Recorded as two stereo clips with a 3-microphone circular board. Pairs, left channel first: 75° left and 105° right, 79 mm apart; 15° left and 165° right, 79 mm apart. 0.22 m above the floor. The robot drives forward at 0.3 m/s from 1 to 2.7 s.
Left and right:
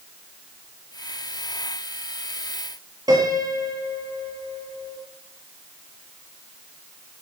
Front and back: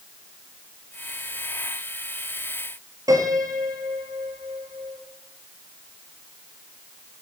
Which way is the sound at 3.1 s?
130° right.